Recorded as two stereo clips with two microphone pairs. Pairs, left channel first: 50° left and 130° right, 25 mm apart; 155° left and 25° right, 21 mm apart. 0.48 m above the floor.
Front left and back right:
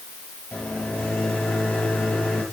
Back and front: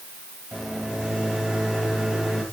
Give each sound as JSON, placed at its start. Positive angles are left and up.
{"t": 0.5, "sound": "a microwave", "azimuth_deg": 25, "distance_m": 8.0}